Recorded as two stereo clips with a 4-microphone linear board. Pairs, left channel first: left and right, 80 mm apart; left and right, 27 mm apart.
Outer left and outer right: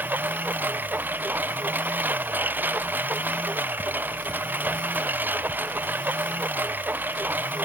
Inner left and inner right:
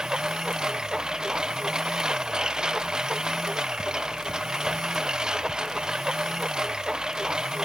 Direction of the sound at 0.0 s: 20° right (ahead or behind).